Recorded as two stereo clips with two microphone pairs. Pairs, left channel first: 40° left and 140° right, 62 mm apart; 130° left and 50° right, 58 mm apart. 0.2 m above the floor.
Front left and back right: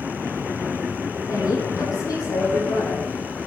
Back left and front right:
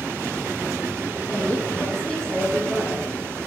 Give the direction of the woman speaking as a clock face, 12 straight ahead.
10 o'clock.